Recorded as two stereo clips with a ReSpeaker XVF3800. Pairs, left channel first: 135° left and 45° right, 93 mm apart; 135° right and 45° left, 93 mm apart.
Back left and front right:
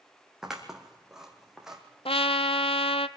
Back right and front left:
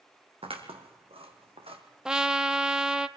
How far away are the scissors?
About 2.5 m.